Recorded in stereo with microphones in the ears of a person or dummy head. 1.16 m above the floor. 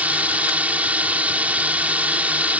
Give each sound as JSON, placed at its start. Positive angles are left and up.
{"t": 0.0, "sound": "a drone", "side_deg": -10}